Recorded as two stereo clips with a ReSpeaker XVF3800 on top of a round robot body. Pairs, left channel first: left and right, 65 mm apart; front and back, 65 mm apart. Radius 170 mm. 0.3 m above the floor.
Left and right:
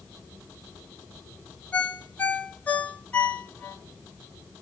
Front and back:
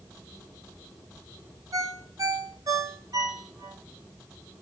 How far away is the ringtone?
About 2 m.